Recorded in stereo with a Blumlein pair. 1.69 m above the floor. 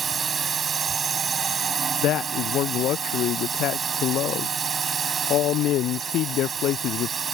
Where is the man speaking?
35° left.